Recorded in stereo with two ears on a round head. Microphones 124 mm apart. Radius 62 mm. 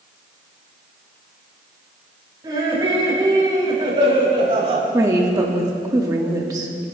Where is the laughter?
30° right (ahead or behind), 4.5 m; by 4.8 s 45° right (ahead or behind), 3 m.